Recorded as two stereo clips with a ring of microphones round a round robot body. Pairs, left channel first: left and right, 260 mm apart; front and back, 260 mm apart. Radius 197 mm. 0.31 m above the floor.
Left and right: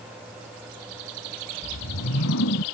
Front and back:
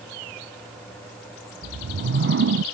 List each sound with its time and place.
1.6 s a whoosh: 140° left